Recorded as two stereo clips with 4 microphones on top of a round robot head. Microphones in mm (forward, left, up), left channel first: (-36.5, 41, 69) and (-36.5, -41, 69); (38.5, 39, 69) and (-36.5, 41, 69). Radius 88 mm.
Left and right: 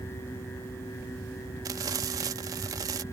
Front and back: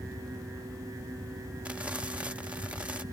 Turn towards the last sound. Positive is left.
turn(degrees=-105)